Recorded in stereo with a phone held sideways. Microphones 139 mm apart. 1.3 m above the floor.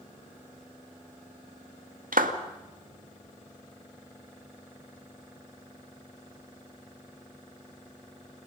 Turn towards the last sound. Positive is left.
turn(degrees=-85)